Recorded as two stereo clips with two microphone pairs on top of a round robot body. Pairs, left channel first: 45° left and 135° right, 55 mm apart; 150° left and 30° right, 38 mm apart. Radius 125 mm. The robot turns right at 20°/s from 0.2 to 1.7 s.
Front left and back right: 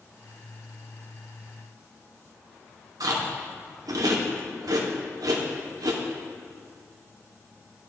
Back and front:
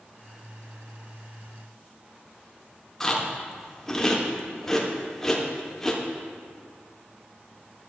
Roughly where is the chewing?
Behind right.